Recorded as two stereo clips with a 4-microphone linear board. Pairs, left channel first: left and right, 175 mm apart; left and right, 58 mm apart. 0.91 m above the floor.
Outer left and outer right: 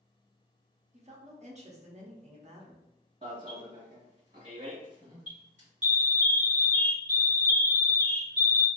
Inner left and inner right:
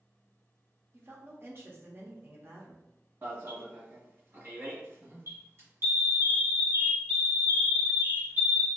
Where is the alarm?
45° right (ahead or behind), 1.5 m.